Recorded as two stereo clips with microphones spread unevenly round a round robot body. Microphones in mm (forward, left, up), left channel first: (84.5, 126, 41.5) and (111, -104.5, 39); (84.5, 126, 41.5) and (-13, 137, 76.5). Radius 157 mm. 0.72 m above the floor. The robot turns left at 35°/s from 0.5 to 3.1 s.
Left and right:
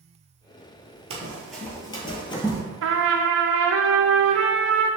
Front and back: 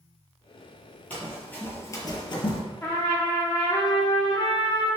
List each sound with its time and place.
1.1 s running footsteps: 115° right, 0.7 m; by 2.6 s 25° left, 1.0 m
2.8 s a trumpet: 60° right, 0.7 m; by 4.9 s 70° right, 0.7 m